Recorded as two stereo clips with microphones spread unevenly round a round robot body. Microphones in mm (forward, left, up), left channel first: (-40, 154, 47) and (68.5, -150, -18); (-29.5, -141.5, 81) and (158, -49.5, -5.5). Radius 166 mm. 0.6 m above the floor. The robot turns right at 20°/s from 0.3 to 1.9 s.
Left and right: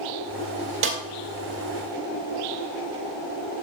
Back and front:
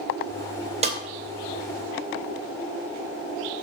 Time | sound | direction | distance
0.8 | a snare drum | 25° right | 2.5 m